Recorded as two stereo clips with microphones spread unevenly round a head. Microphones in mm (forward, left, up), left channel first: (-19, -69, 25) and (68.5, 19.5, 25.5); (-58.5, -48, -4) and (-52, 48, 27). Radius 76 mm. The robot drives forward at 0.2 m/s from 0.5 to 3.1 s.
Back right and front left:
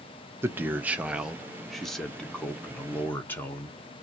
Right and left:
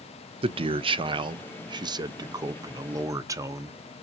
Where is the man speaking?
115° left, 0.6 m; by 3.8 s 150° left, 0.9 m.